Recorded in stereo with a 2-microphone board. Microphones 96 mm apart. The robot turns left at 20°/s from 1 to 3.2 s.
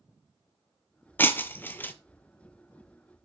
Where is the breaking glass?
20° left (ahead or behind), 0.5 m.